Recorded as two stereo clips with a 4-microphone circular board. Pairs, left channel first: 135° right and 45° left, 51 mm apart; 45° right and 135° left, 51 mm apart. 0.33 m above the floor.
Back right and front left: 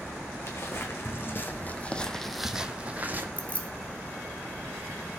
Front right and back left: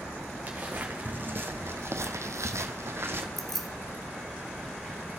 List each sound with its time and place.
0.5 s footsteps: 160° right, 1.5 m; by 3.3 s 95° left, 1.0 m
3.4 s keys jangling: 125° right, 0.9 m